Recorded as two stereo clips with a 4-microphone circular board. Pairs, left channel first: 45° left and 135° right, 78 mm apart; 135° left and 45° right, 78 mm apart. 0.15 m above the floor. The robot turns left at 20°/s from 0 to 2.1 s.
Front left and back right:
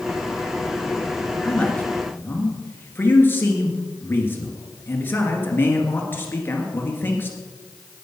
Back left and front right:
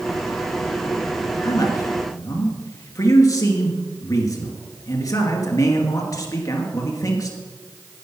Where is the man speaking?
115° left, 2 m; by 7.4 s 105° left, 2 m.